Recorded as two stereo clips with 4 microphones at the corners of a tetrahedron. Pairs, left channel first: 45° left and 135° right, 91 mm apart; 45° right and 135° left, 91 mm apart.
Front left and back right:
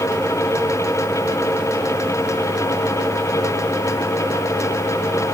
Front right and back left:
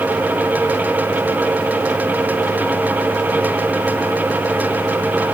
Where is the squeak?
No squeak in this recording.